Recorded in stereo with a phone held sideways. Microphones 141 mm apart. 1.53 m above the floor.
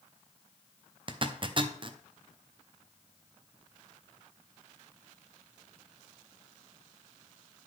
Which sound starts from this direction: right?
A zipper, at 1.1 s.